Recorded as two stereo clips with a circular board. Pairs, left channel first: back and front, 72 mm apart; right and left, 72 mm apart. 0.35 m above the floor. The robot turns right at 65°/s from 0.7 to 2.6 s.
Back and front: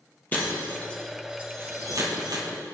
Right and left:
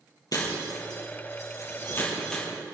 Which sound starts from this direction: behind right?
Breaking glass, at 0.3 s.